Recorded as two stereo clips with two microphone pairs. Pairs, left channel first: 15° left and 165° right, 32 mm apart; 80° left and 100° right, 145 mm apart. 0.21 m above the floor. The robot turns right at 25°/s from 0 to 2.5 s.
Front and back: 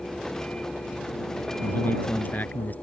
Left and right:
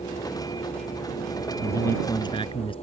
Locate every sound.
1.6 s a man speaking: 10° left; by 2.8 s 35° left